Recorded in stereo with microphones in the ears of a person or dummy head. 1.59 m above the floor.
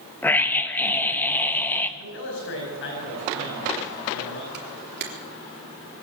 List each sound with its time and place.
0.2 s a scream: 5° left (ahead or behind), 1.5 m
2.0 s a man speaking: 60° left (ahead or behind), 9.5 m
4.5 s a camera shutter: 60° right (ahead or behind), 3.5 m